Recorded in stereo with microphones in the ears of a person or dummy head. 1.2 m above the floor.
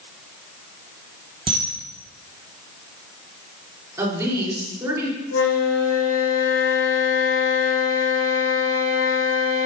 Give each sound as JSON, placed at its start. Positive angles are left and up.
{"t": 1.5, "sound": "a camera shutter", "side_deg": -25, "distance_m": 1.2}
{"t": 4.0, "sound": "a woman speaking", "side_deg": -20, "distance_m": 3.0}
{"t": 5.3, "sound": "a flute", "side_deg": 70, "distance_m": 1.7}